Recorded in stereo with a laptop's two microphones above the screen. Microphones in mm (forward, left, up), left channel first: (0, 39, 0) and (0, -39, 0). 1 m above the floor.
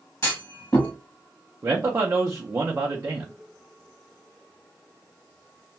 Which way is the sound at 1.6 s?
35° right (ahead or behind).